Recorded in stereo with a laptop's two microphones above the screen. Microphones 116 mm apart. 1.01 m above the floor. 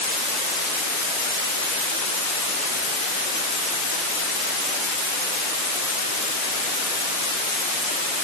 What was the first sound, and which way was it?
Only background noise.